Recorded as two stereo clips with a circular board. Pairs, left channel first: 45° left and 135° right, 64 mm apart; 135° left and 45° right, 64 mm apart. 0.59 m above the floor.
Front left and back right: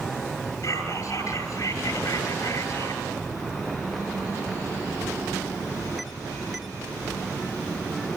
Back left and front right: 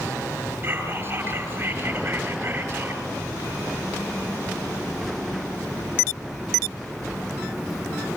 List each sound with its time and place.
0.6 s whispering: 15° left, 9.5 m